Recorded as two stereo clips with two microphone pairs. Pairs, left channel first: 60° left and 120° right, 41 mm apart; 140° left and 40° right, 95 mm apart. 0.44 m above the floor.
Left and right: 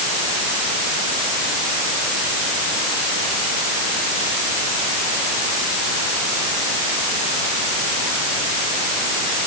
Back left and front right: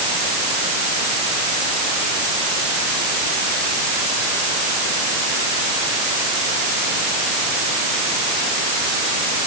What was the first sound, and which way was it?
Only background noise.